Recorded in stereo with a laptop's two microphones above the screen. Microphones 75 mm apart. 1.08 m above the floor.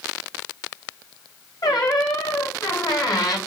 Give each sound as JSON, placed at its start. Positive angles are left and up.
{"t": 1.6, "sound": "a squeak", "side_deg": 60, "distance_m": 1.7}